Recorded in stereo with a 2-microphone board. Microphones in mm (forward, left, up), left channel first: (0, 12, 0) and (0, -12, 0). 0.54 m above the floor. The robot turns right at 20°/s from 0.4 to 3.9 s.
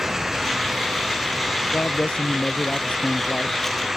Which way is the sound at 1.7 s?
115° left.